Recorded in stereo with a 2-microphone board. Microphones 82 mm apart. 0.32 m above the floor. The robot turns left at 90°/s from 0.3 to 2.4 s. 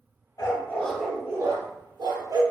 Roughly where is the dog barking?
Ahead left.